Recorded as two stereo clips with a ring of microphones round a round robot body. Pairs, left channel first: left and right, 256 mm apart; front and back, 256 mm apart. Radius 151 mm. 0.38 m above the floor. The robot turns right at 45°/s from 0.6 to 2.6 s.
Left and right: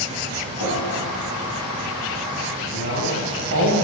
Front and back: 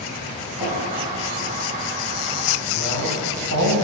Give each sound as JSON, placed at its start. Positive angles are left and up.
{"t": 0.6, "sound": "dripping", "azimuth_deg": 115, "distance_m": 4.0}
{"t": 2.7, "sound": "a man speaking", "azimuth_deg": -140, "distance_m": 2.5}